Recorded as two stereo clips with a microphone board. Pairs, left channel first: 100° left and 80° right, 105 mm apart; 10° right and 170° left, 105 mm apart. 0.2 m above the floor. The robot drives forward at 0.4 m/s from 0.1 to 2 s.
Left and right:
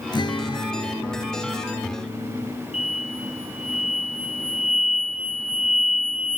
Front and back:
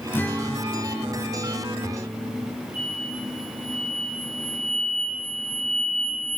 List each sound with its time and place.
0.1 s a guitar: 55° left, 1.3 m; by 2.5 s 95° left, 1.1 m
2.7 s an explosion: 95° left, 1.5 m